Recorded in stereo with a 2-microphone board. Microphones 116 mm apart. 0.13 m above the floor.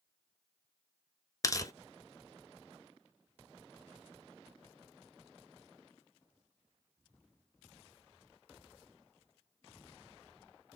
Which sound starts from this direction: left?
Tearing paper, at 1.4 s.